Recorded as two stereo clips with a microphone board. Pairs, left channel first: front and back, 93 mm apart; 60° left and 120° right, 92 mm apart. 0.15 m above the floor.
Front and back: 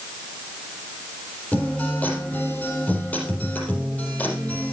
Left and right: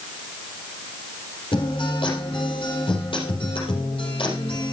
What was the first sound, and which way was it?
A guitar, 70° left.